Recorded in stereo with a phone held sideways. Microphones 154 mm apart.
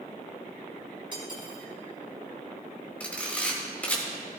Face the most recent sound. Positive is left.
turn(degrees=10)  # may be behind; listen again after turning